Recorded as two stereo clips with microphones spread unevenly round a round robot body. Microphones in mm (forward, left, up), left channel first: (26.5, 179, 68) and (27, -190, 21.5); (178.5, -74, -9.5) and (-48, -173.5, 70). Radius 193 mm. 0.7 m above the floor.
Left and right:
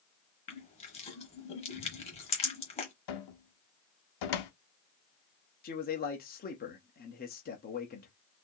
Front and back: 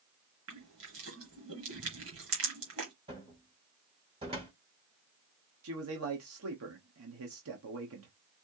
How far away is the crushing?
About 1.1 m.